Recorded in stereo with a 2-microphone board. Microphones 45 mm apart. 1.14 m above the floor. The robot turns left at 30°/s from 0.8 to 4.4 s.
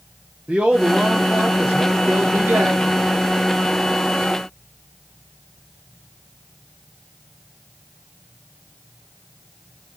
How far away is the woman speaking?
About 0.6 m.